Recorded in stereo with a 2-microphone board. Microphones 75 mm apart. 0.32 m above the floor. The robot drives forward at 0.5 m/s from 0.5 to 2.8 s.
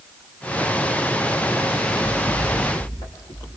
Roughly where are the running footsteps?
Left.